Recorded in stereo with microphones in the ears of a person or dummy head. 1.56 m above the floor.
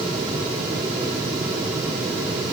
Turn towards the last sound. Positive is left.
No sound to turn to.